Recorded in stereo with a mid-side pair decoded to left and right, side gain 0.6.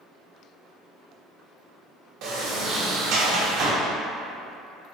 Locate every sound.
2.2 s a sliding door: 65° right, 0.9 m